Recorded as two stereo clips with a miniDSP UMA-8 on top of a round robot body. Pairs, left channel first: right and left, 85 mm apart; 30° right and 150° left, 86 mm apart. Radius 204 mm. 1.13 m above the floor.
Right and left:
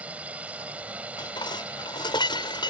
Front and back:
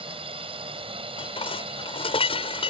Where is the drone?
165° left.